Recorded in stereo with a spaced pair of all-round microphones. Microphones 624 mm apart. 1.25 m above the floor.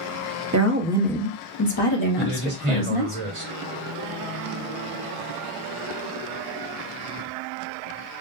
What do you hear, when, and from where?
0.5 s a woman speaking: 30° right (ahead or behind), 0.6 m; by 3.2 s 70° left (ahead or behind), 1.4 m
2.2 s a man speaking: 55° right (ahead or behind), 1.6 m